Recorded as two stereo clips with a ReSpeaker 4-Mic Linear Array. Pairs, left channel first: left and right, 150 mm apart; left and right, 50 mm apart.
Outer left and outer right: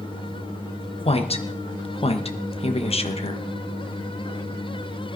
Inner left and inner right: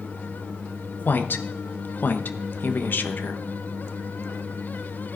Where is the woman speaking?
45° left (ahead or behind), 1.0 m.